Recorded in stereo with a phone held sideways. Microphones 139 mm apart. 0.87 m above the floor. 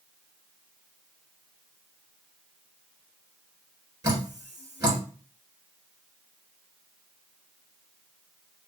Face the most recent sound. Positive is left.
turn(degrees=-25)  # may be behind; listen again after turning